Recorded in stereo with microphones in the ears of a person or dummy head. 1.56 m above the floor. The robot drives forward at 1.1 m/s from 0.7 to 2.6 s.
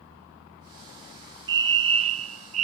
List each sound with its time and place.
1.5 s a fire alarm: 25° right (ahead or behind); by 2.6 s 35° right (ahead or behind)